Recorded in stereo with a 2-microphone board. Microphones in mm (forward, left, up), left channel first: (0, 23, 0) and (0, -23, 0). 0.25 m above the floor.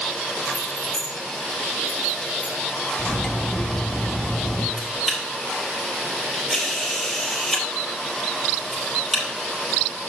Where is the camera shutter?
5° right (ahead or behind), 4 m.